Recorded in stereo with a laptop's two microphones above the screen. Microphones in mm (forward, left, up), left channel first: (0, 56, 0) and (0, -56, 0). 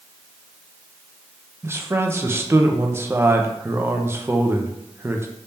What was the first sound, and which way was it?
A man speaking, 20° right (ahead or behind).